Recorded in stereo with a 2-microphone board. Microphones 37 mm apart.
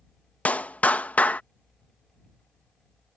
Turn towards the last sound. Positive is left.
turn(degrees=45)  # may be behind; listen again after turning